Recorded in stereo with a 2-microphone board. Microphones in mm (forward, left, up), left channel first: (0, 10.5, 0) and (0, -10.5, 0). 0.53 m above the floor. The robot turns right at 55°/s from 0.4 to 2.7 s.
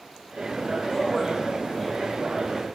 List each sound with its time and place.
0.9 s a man speaking: 10° left (ahead or behind), 3.5 m; by 2.7 s 75° right (ahead or behind), 3.5 m